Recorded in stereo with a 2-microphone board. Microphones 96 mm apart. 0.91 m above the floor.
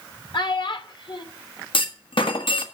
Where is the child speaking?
50° left (ahead or behind), 1.6 m.